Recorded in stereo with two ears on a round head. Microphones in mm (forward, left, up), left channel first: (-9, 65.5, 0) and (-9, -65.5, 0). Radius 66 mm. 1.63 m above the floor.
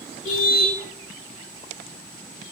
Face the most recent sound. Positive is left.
turn(degrees=60)  # may be behind; listen again after turning